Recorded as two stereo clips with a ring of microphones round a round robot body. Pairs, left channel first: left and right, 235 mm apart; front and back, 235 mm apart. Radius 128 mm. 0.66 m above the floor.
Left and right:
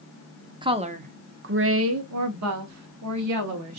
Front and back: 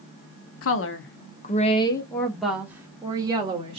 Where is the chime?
No chime in this recording.